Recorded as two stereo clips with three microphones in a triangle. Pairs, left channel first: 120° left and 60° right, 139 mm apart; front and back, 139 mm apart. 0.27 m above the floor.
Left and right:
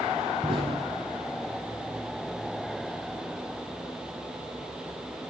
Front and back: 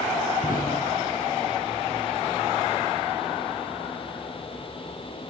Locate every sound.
0.4 s an explosion: 10° right, 4.5 m